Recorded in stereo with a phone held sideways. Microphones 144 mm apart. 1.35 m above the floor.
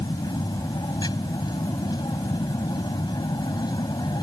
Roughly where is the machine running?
Left.